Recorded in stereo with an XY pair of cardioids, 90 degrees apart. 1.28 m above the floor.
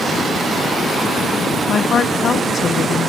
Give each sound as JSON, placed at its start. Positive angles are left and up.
{"t": 1.7, "sound": "a woman speaking", "azimuth_deg": 60}